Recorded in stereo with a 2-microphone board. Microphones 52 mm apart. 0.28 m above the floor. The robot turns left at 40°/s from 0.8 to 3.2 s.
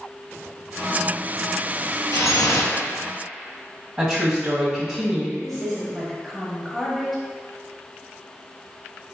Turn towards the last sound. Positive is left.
turn(degrees=0)  # may be behind; listen again after turning